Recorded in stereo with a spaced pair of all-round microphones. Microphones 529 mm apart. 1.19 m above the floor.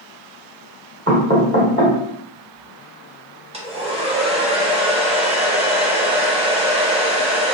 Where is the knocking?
25° right (ahead or behind), 1.0 m.